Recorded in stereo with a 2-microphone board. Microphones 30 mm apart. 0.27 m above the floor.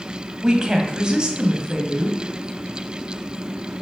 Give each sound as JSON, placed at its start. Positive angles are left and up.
{"t": 0.4, "sound": "a woman speaking", "side_deg": -25, "distance_m": 1.9}